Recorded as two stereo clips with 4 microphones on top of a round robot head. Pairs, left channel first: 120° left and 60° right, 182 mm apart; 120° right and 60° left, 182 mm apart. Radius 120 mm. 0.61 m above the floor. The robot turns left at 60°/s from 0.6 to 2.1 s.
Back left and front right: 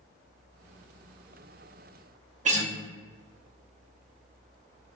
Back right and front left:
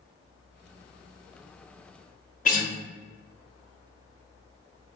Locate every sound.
2.5 s a guitar: 95° right, 1.1 m